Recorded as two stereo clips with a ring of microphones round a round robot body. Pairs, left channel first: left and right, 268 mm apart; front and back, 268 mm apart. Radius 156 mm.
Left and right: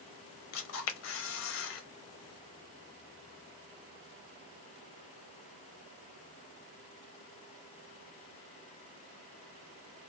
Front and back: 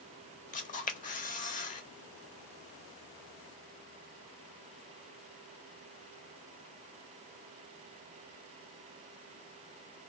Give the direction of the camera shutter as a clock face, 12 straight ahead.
10 o'clock.